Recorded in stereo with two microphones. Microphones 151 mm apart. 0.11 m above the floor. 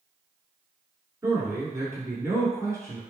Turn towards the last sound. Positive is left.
turn(degrees=-20)  # may be behind; listen again after turning